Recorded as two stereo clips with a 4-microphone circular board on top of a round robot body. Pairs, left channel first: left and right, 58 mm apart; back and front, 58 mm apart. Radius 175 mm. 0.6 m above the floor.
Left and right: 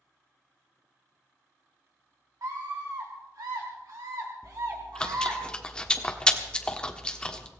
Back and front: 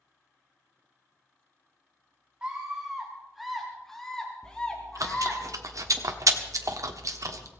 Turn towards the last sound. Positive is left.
turn(degrees=15)